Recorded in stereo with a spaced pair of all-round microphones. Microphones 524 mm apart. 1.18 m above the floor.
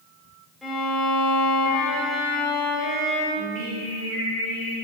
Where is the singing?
60° right (ahead or behind), 1.7 m.